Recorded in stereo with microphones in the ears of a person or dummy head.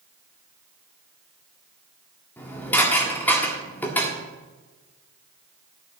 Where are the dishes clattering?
15° left (ahead or behind), 1.8 m.